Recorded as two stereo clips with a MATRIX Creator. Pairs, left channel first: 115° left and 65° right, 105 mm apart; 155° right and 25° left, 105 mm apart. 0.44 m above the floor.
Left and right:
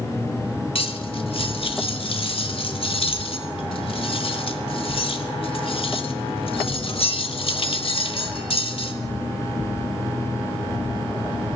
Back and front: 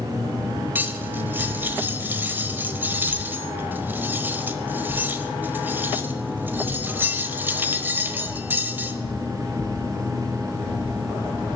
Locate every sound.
0.8 s cutlery clinking: 95° left, 1.1 m